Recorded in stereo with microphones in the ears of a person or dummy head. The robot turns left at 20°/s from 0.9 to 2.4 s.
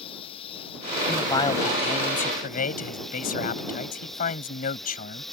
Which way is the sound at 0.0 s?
30° left.